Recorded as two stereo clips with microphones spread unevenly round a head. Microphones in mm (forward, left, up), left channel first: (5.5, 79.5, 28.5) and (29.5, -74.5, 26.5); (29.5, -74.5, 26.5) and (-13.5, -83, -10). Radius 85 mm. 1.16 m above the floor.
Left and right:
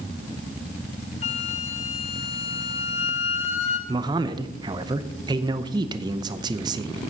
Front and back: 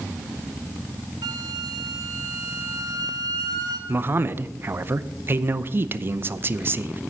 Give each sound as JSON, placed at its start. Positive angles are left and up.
{"t": 1.2, "sound": "a flute", "azimuth_deg": 145, "distance_m": 0.9}
{"t": 3.9, "sound": "a man speaking", "azimuth_deg": -150, "distance_m": 0.7}